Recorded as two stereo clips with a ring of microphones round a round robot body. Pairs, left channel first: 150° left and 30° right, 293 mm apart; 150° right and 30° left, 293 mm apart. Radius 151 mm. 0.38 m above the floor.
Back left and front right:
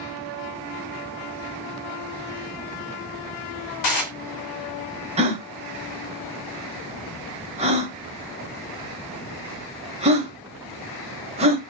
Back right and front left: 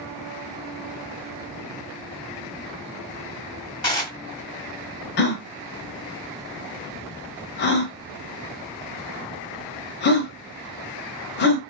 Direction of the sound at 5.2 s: 100° right.